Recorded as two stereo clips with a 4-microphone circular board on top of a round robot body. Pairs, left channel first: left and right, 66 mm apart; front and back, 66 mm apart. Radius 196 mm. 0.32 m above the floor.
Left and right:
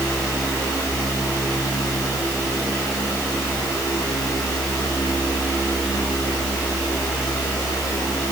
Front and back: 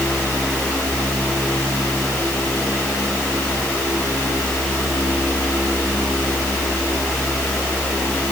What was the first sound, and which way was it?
Only background noise.